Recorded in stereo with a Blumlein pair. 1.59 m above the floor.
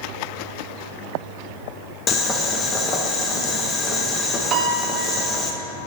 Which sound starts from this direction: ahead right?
A piano, at 4.5 s.